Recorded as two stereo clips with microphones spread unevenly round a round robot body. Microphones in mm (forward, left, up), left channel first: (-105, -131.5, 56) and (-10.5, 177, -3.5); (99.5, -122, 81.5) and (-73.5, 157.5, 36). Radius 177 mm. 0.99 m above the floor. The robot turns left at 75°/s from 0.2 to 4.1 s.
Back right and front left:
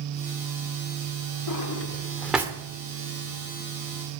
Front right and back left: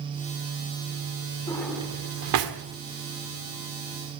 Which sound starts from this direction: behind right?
A drawer, at 1.5 s.